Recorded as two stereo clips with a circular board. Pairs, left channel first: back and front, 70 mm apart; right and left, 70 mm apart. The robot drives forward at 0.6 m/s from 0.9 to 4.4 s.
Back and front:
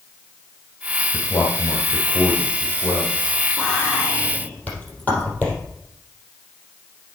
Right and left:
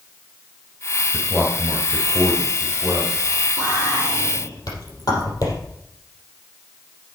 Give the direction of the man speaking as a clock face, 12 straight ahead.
5 o'clock.